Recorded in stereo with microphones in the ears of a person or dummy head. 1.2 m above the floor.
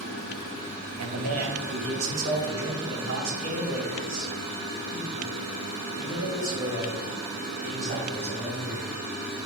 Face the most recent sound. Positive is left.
turn(degrees=-60)  # may be behind; listen again after turning